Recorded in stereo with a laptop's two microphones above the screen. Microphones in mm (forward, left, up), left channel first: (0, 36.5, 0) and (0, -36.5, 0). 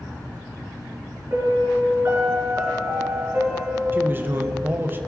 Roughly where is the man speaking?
Right.